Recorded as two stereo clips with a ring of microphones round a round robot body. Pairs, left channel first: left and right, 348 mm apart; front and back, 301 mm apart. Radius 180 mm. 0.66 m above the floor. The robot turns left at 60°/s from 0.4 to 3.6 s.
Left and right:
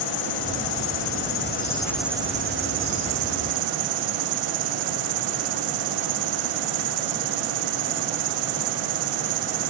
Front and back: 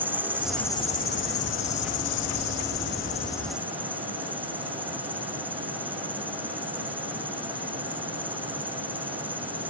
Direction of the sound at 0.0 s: 95° left.